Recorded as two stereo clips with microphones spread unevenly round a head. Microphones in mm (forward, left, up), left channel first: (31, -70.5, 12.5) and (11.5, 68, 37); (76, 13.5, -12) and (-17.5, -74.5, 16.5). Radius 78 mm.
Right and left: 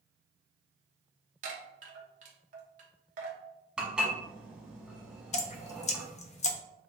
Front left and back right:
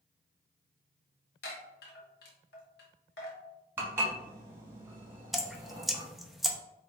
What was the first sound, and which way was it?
A chime, 70° left.